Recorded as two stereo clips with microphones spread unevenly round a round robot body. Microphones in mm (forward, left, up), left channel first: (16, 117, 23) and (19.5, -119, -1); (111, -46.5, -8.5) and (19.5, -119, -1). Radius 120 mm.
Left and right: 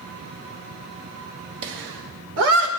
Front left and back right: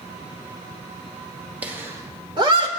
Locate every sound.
1.6 s laughter: 65° right, 2 m; by 2.7 s 105° right, 2.5 m